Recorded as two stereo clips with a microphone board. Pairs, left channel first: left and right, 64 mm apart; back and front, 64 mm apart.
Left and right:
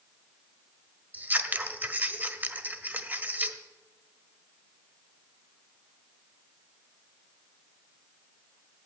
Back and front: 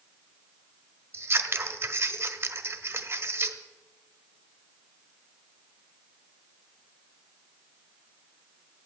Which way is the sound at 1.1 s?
35° right.